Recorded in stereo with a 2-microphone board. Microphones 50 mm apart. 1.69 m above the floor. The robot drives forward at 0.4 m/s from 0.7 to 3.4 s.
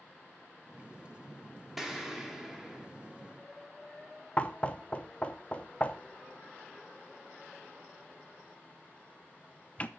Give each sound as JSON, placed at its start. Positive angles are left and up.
{"t": 1.8, "sound": "an explosion", "side_deg": -5, "distance_m": 2.0}
{"t": 4.4, "sound": "knocking", "side_deg": 25, "distance_m": 0.8}